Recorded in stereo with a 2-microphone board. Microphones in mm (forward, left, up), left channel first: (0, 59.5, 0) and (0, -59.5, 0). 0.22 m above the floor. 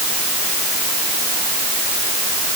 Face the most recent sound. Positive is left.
No sound to turn to.